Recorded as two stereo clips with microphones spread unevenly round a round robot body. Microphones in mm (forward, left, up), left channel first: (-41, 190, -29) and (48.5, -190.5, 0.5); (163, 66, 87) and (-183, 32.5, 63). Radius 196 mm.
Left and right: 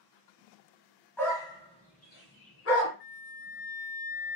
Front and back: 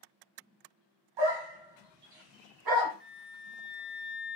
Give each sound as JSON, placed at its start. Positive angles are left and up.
{"t": 1.2, "sound": "a dog barking", "azimuth_deg": -170, "distance_m": 1.7}
{"t": 3.0, "sound": "a flute", "azimuth_deg": 120, "distance_m": 2.0}